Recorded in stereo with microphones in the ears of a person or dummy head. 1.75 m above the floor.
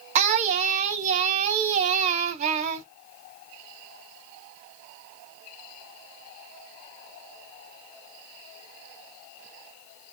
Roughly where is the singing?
Right.